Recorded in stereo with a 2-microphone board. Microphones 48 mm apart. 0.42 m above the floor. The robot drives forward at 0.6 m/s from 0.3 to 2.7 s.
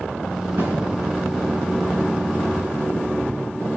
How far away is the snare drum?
About 2.5 m.